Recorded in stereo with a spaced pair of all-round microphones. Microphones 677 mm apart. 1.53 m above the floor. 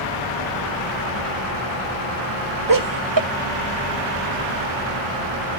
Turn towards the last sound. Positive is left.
turn(degrees=-30)  # may be behind; listen again after turning